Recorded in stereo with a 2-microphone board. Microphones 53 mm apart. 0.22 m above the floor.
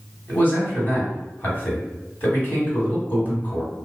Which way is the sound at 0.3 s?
35° left (ahead or behind).